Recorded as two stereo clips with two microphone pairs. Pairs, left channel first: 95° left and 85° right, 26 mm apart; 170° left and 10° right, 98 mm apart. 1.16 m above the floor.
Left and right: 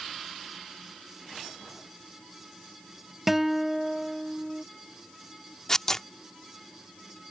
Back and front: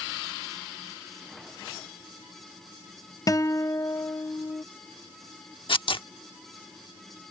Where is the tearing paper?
165° left.